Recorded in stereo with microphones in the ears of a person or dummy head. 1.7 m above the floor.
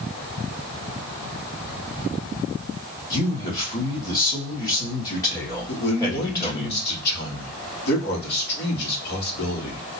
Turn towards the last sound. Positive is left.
turn(degrees=55)  # may be behind; listen again after turning